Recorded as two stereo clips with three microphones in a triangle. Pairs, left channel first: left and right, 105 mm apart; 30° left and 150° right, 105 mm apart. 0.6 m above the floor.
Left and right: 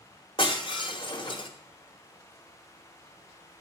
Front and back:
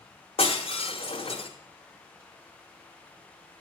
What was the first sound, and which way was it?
Breaking glass, 50° left.